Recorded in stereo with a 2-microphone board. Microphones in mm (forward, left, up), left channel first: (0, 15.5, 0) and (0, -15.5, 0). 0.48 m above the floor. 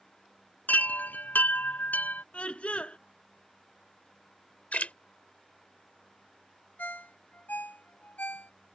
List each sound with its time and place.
0.7 s a chime: 75° left (ahead or behind)
2.3 s a scream: 40° left (ahead or behind)
4.7 s a splash: 50° left (ahead or behind)
6.8 s a ringtone: 80° left